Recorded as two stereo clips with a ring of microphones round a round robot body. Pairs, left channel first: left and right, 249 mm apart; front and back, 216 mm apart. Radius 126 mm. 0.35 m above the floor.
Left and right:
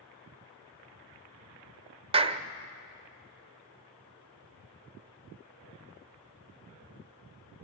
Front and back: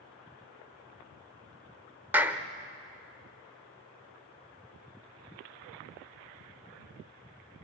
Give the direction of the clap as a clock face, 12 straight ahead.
4 o'clock.